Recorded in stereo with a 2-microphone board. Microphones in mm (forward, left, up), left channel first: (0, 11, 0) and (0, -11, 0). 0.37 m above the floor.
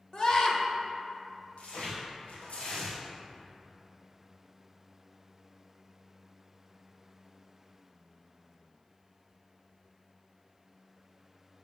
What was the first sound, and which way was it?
A scream, 40° left (ahead or behind).